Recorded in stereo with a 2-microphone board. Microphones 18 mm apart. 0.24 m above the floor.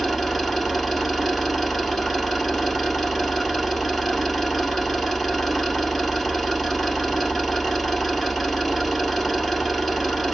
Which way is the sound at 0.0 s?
5° right (ahead or behind).